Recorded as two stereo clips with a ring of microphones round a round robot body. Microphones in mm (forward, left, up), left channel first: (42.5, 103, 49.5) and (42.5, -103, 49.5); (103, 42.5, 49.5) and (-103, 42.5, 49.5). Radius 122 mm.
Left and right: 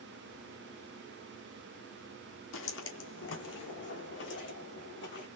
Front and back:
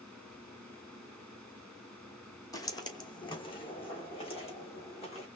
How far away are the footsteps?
About 1.5 m.